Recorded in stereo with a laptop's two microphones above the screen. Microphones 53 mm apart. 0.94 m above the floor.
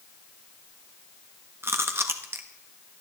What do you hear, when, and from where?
1.6 s chewing: 50° right (ahead or behind), 1.2 m